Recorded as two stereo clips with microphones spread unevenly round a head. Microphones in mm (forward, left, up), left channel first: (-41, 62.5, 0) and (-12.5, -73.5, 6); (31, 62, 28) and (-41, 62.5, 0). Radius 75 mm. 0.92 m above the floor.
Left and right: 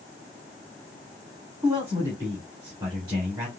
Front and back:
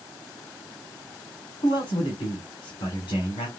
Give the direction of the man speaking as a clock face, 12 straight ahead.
12 o'clock.